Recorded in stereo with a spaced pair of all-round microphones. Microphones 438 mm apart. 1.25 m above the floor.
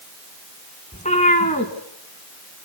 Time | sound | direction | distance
0.9 | a cat meowing | 15° left (ahead or behind) | 2.5 m